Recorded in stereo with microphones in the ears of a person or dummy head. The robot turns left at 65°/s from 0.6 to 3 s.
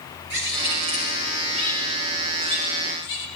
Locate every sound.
0.3 s a bird: 120° right, 3.5 m; by 3.3 s 80° left, 3.5 m